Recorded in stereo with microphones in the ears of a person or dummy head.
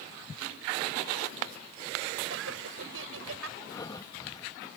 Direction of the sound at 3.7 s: 30° left (ahead or behind).